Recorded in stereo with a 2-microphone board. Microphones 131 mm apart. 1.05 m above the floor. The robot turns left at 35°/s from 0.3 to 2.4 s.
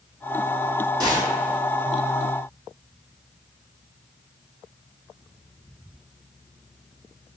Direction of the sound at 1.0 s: 30° right (ahead or behind).